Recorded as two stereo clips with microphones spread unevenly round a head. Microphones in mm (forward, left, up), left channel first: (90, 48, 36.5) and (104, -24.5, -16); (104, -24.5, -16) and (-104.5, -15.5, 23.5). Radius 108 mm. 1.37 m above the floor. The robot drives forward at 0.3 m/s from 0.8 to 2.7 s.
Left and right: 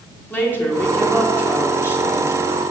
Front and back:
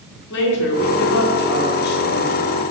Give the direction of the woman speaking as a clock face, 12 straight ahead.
11 o'clock.